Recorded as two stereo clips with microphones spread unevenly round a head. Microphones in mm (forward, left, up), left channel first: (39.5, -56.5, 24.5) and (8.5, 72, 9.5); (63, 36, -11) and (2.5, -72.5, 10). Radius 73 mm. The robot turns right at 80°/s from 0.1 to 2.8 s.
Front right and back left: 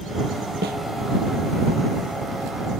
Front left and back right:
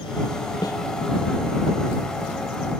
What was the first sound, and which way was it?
A snare drum, 125° left.